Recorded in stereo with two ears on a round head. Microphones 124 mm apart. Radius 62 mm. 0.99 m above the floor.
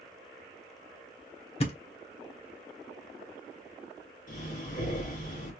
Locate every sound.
1.6 s a thud: 45° left (ahead or behind), 0.9 m
4.3 s breathing: 70° left (ahead or behind), 2.5 m